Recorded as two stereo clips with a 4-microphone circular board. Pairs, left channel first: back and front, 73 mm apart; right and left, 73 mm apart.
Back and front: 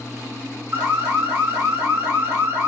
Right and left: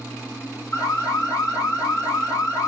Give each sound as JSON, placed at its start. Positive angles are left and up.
{"t": 0.7, "sound": "an alarm", "azimuth_deg": -65, "distance_m": 1.5}